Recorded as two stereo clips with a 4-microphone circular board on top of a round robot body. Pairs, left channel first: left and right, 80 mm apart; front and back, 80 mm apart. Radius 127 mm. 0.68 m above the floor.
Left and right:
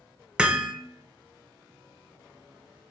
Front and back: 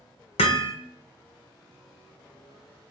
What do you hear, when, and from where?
0.4 s hammering: 10° right, 0.8 m